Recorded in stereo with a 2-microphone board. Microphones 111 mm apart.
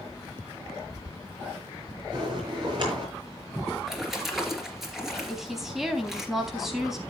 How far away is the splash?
About 2.5 m.